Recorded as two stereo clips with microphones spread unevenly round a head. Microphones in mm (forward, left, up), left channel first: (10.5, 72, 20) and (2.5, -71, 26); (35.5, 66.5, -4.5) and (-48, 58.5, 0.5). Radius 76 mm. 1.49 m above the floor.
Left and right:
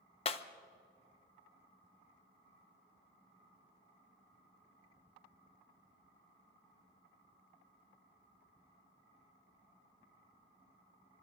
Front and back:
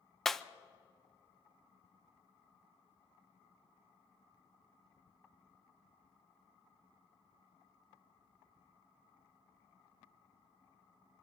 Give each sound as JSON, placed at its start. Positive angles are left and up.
{"t": 0.2, "sound": "breaking glass", "azimuth_deg": 95, "distance_m": 0.6}